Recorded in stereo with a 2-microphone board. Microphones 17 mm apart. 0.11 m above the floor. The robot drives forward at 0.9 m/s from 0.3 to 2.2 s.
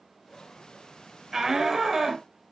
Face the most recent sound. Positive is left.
turn(degrees=-10)  # may be behind; listen again after turning